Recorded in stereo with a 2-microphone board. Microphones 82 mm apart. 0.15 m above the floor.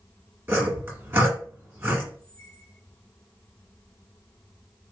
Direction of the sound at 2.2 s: 40° left (ahead or behind).